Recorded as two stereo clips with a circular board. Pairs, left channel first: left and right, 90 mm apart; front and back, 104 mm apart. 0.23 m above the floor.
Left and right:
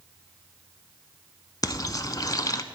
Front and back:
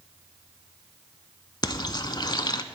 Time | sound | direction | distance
1.6 | frying | 45° left | 0.6 m